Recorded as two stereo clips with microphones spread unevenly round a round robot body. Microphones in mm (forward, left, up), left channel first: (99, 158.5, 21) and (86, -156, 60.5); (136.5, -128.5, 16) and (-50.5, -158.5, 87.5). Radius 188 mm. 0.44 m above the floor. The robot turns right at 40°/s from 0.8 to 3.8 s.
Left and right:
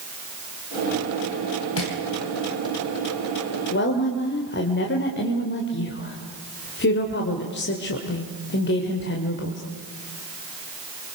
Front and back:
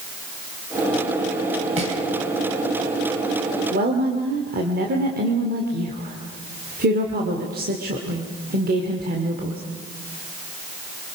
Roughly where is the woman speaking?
Behind left.